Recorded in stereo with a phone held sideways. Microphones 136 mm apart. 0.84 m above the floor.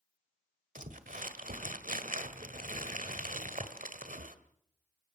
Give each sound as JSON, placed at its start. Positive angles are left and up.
{"t": 0.8, "sound": "crumpling", "side_deg": -75, "distance_m": 1.7}